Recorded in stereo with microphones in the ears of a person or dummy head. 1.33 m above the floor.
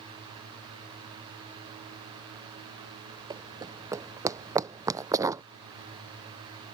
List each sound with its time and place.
3.3 s running footsteps: 20° right (ahead or behind); by 5.4 s 15° right (ahead or behind)